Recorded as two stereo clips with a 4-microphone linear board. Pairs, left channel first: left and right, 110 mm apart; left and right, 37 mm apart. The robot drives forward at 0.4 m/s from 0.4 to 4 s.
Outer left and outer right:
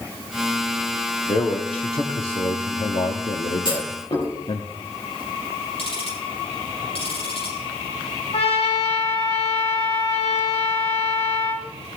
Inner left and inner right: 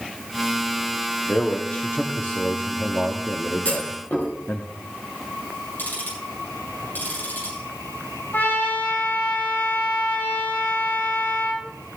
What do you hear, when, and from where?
1.3 s a man speaking: 55° left (ahead or behind), 1.3 m; by 4.7 s 60° left (ahead or behind), 1.2 m
3.6 s a clunk: 50° left (ahead or behind), 4.5 m
5.8 s ticking: 70° left (ahead or behind), 6.5 m
8.3 s a trumpet: 75° left (ahead or behind), 3.5 m